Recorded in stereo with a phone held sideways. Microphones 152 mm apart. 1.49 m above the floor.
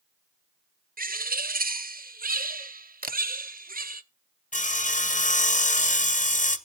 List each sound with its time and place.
1.0 s a bird: 70° right (ahead or behind), 0.5 m
3.0 s a camera shutter: 70° right (ahead or behind), 0.6 m
4.5 s sawing: 55° left (ahead or behind), 0.7 m